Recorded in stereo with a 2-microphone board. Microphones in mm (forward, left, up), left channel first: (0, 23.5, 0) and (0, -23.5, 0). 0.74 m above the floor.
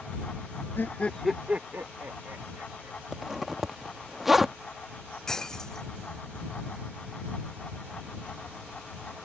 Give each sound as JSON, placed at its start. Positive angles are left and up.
{"t": 0.8, "sound": "laughter", "side_deg": 50}
{"t": 3.1, "sound": "a zipper", "side_deg": -5}
{"t": 5.3, "sound": "breaking glass", "side_deg": 15}